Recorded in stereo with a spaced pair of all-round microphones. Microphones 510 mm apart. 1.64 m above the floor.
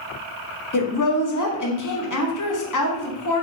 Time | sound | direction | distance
0.7 | a woman speaking | 40° left (ahead or behind) | 0.6 m